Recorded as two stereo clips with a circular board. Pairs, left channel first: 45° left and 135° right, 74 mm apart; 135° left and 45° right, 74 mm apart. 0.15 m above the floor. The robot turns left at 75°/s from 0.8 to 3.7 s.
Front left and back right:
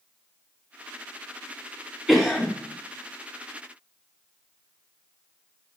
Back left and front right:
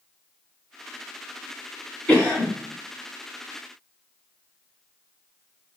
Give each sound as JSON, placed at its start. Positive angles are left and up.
{"t": 2.1, "sound": "a cough", "azimuth_deg": 140, "distance_m": 1.0}